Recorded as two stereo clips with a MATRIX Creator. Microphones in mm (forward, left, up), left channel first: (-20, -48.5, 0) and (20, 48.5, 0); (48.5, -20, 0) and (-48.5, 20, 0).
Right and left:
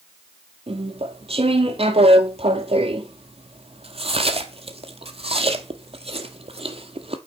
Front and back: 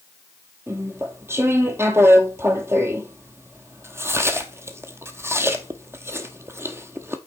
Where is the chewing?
90° left, 0.9 m.